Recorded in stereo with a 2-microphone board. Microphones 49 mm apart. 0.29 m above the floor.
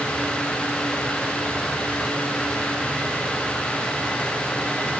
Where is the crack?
No crack in this recording.